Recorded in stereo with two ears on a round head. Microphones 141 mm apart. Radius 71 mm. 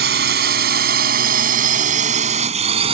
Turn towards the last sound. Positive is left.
turn(degrees=-40)  # may be behind; listen again after turning